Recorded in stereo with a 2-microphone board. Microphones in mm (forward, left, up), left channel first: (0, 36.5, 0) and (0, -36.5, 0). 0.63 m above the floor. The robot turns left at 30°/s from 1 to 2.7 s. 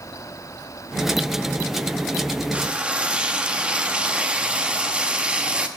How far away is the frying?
About 0.7 m.